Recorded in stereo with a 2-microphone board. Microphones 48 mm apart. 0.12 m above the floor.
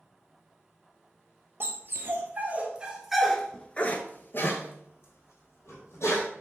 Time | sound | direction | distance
1.6 | a dog barking | 50° right (ahead or behind) | 1.2 m